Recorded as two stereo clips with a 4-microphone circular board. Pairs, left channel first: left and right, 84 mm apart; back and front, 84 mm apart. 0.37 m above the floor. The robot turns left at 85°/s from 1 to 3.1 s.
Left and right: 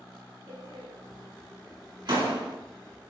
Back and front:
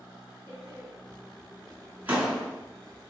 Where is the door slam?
25° left, 2.5 m; by 2.6 s 110° right, 2.5 m.